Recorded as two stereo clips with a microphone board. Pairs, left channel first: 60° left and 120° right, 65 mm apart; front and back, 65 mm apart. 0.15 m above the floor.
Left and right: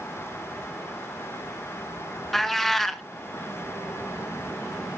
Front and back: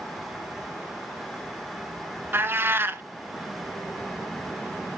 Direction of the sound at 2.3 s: 145° left.